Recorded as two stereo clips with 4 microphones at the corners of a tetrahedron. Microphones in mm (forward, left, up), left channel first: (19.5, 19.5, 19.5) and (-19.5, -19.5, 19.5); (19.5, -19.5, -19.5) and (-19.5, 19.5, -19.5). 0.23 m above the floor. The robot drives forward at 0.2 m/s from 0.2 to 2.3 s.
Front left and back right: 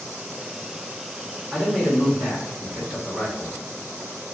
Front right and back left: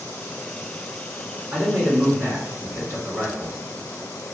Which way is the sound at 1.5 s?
130° left.